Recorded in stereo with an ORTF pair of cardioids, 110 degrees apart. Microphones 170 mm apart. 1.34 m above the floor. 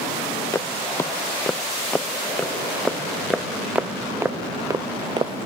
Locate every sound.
0.5 s footsteps: 15° left; by 5.3 s 30° right